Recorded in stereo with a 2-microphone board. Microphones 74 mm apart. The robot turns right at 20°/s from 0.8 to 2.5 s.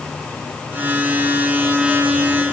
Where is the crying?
No crying in this recording.